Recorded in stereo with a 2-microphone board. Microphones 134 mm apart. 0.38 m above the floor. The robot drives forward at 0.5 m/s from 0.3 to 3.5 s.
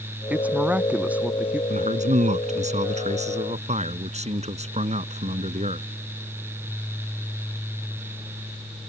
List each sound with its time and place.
0.3 s a woman speaking: 10° right (ahead or behind)
1.7 s a man speaking: 60° right (ahead or behind); by 5.9 s 55° right (ahead or behind)